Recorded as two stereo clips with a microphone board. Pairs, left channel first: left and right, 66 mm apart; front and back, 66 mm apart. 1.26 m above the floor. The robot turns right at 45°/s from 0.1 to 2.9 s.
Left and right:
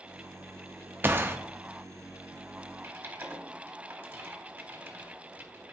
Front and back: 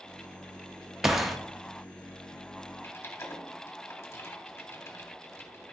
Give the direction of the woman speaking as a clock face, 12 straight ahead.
No woman speaking in this recording.